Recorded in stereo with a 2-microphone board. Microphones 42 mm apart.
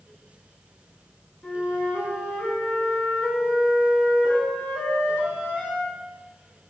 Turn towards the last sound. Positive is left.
turn(degrees=25)  # may be behind; listen again after turning